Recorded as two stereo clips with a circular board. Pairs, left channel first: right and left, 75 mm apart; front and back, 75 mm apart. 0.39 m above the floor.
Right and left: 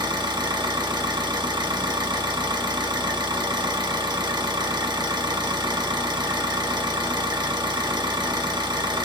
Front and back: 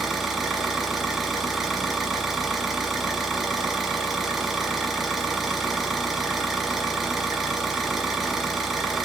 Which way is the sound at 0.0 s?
90° left.